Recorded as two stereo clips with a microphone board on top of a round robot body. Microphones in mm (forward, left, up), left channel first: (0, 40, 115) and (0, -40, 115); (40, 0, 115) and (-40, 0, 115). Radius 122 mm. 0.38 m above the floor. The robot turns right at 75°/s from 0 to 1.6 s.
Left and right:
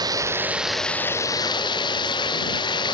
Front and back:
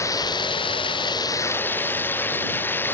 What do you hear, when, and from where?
0.0 s running water: 55° right; by 2.9 s 65° left